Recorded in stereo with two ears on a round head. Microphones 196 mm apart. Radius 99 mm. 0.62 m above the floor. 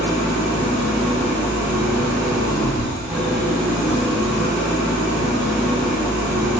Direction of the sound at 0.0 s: 5° right (ahead or behind).